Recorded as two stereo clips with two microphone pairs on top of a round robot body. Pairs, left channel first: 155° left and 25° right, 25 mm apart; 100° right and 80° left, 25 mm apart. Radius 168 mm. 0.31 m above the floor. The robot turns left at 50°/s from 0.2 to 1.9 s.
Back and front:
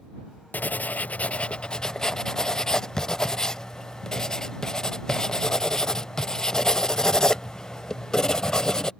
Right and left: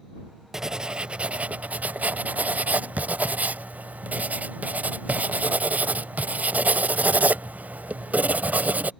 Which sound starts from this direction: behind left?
Writing, at 0.5 s.